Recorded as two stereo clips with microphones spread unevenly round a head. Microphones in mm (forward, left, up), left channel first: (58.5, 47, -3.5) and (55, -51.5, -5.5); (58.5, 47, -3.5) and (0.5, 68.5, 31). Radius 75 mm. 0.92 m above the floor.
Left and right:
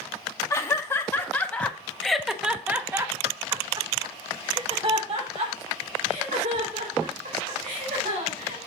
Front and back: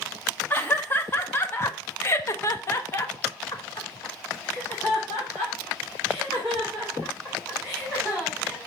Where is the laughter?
25° left, 1.6 m; by 8.6 s 100° right, 3 m.